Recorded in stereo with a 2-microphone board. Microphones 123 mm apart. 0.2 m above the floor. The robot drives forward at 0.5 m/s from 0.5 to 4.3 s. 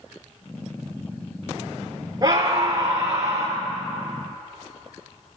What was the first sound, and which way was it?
A scream, 30° right (ahead or behind).